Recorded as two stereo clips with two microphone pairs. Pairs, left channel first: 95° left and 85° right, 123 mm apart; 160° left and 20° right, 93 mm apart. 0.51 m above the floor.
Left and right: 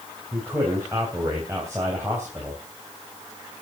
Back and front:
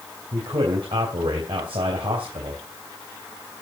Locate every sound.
0.3 s a man speaking: 15° right, 3 m